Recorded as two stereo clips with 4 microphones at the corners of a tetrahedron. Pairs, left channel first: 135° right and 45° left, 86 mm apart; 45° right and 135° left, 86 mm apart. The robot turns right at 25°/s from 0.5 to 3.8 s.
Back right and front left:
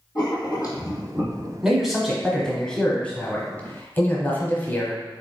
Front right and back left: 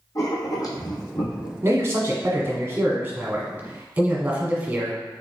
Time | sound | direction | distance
0.1 | writing | 90° right | 1.4 m
1.6 | a man speaking | 130° left | 1.1 m